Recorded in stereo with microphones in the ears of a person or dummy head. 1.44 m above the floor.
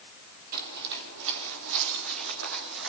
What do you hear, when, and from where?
0.5 s footsteps: 50° right (ahead or behind), 3 m; by 2.9 s 70° right (ahead or behind), 4.5 m